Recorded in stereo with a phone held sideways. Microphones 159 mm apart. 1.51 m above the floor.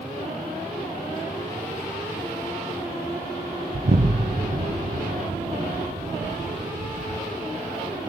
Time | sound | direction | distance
3.7 | an explosion | 55° right (ahead or behind) | 0.6 m